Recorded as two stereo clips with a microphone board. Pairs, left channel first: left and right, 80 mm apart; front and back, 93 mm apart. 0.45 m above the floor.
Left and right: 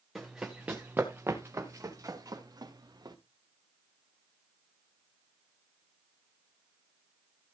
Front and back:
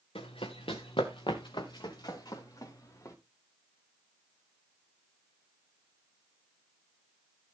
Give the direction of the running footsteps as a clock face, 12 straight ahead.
12 o'clock.